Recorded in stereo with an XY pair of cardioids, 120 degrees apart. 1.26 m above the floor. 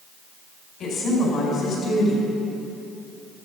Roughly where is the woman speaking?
Ahead left.